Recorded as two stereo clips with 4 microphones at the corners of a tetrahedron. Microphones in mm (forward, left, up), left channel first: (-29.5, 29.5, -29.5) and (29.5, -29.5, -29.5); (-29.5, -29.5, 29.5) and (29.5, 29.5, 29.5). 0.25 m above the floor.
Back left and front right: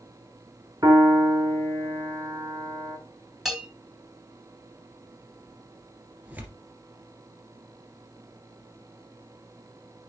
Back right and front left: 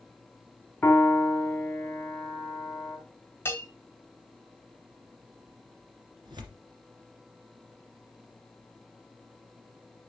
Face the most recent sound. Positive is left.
turn(degrees=25)